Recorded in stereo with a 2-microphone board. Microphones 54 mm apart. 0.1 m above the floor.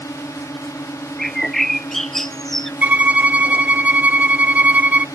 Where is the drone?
75° left (ahead or behind).